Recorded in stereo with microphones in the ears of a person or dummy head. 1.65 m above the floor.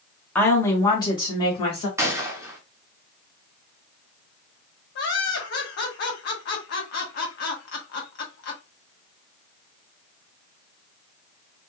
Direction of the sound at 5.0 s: 60° left (ahead or behind).